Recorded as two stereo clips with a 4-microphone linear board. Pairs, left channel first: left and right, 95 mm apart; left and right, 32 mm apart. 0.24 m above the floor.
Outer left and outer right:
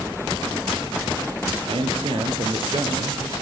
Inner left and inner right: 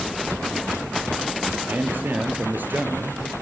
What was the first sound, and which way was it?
A man speaking, 70° right (ahead or behind).